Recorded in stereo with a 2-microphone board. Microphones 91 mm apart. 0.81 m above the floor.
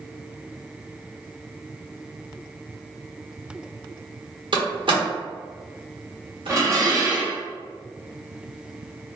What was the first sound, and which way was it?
A door slam, 60° right (ahead or behind).